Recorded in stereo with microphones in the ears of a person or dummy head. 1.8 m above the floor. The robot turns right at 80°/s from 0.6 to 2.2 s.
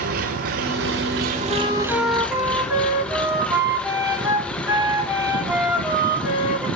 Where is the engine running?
120° right, 1.4 m; by 6.8 s 10° left, 1.4 m.